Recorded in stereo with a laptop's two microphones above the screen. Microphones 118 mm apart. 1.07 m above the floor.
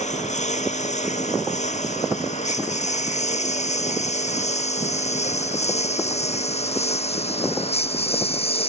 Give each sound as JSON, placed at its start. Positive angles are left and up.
{"t": 0.0, "sound": "a lawn mower", "side_deg": 85}